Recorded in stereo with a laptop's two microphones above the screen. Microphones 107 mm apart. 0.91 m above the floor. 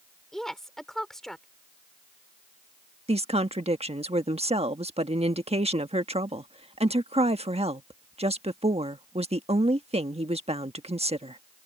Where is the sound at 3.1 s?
70° right (ahead or behind).